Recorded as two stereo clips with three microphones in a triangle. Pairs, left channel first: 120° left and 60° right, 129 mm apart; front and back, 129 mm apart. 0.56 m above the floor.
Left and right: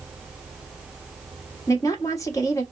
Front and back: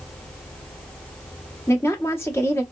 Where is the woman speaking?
65° left, 1.3 m.